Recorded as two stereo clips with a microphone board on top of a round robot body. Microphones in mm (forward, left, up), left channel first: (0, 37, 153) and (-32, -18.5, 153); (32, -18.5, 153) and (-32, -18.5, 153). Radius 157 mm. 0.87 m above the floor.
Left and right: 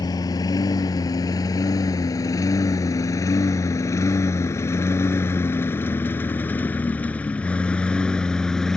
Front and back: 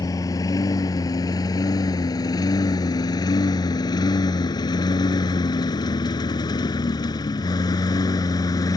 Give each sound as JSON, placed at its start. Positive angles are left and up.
{"t": 0.0, "sound": "a lawn mower", "azimuth_deg": 35}